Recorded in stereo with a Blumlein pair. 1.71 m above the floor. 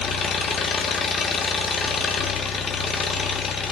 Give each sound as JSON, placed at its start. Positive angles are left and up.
{"t": 0.0, "sound": "an engine running", "azimuth_deg": 15, "distance_m": 2.0}